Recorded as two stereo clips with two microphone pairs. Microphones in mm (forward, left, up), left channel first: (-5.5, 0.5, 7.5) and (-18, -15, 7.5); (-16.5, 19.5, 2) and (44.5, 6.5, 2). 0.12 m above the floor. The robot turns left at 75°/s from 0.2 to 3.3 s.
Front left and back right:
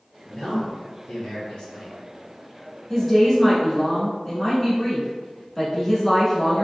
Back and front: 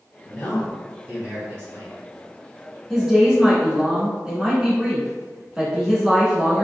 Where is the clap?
I don't hear a clap.